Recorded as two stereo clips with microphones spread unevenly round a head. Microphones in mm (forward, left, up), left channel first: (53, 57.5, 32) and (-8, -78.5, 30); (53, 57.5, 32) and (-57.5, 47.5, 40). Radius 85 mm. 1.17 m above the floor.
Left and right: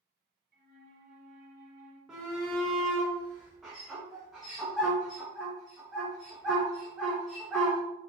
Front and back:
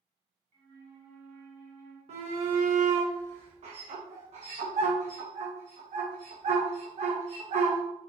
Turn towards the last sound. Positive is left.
turn(degrees=160)